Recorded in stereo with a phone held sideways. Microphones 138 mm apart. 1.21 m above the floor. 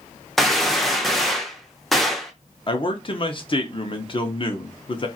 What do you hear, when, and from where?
0.4 s a gunshot: centre (ahead or behind), 0.5 m
2.7 s a man speaking: 40° left (ahead or behind), 0.6 m